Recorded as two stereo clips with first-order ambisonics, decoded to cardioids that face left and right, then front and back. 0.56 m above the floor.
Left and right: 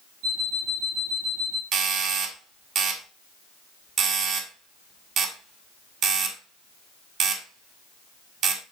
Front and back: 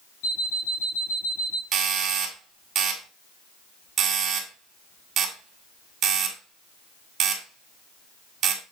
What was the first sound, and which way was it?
An alarm clock, 35° right.